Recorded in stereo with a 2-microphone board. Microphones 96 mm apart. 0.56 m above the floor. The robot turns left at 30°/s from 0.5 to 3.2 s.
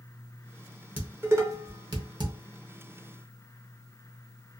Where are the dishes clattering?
20° right (ahead or behind), 0.8 m; by 2.3 s 55° right (ahead or behind), 0.8 m.